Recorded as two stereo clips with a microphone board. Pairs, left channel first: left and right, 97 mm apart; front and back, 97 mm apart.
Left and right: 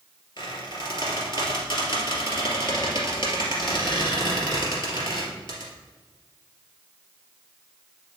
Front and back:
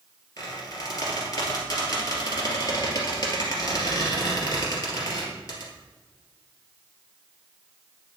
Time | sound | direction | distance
0.4 | a squeak | 55° left | 2.5 m